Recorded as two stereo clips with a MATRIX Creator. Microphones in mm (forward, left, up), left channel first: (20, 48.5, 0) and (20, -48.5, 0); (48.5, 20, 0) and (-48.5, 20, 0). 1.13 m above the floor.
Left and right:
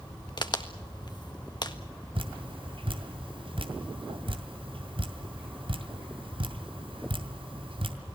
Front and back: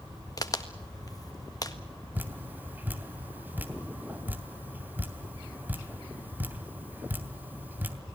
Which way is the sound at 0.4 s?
50° left.